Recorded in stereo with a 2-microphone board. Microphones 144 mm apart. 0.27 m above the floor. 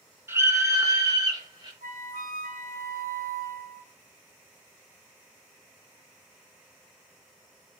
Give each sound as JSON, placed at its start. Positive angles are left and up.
{"t": 0.3, "sound": "a scream", "side_deg": -15, "distance_m": 4.0}
{"t": 1.8, "sound": "a flute", "side_deg": -70, "distance_m": 1.1}